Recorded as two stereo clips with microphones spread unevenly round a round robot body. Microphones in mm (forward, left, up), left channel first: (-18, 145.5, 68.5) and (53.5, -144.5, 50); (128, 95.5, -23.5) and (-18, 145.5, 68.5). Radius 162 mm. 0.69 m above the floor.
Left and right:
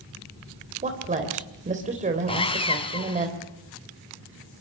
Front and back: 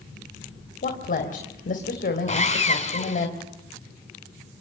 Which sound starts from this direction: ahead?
A woman speaking, at 0.8 s.